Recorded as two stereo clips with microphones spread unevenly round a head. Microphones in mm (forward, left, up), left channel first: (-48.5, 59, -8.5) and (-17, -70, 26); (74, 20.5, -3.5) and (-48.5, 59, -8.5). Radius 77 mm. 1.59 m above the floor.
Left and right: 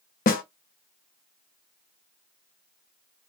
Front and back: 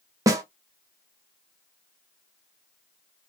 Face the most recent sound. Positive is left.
turn(degrees=105)